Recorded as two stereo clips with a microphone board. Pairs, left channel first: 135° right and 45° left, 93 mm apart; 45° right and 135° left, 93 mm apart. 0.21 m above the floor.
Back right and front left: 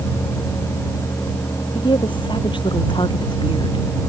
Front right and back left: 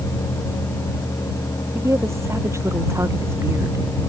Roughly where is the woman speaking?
Behind.